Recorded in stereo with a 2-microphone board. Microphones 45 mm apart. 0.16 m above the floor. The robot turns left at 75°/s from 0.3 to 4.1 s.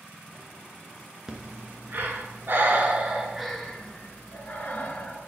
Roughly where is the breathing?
Centre.